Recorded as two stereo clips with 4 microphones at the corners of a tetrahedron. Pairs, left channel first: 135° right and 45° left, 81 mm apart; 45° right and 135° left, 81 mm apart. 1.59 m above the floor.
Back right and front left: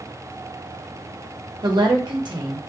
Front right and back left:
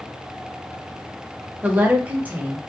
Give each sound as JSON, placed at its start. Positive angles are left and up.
{"t": 1.6, "sound": "a woman speaking", "azimuth_deg": 65, "distance_m": 0.7}